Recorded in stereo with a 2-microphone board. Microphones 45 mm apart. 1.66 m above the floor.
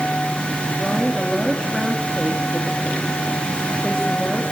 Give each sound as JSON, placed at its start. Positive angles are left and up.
{"t": 0.8, "sound": "a woman speaking", "side_deg": 10, "distance_m": 4.0}